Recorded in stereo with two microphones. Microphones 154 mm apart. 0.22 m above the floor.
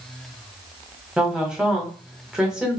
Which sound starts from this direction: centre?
A woman speaking, at 1.2 s.